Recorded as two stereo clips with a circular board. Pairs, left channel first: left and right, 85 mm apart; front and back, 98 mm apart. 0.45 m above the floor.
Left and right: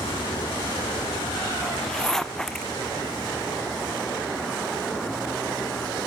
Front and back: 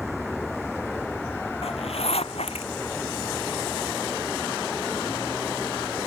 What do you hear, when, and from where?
0.0 s a vehicle: 95° left; by 6.1 s 65° left
1.6 s a zipper: 5° left